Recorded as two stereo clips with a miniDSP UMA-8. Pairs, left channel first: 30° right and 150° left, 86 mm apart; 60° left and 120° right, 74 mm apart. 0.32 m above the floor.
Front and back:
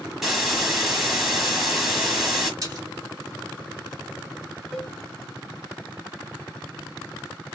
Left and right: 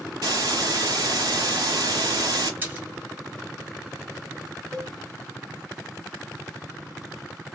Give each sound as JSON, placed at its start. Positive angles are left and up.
{"t": 0.2, "sound": "a hiss", "azimuth_deg": -125, "distance_m": 1.1}
{"t": 2.6, "sound": "a splash", "azimuth_deg": -175, "distance_m": 1.6}
{"t": 4.7, "sound": "a cowbell", "azimuth_deg": -130, "distance_m": 2.5}